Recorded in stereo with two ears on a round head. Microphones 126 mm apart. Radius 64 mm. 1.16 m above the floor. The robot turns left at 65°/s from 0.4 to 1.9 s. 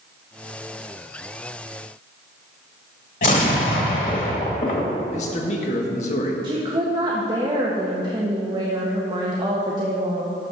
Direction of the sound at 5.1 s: 50° left (ahead or behind).